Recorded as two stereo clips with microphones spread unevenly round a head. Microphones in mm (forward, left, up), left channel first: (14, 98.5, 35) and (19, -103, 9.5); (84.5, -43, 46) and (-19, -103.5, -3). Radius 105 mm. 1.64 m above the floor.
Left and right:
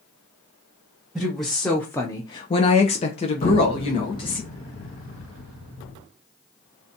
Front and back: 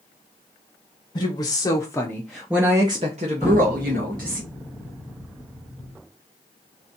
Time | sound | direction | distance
1.1 | a woman speaking | 5° left | 0.9 m
3.4 | an explosion | 110° left | 1.1 m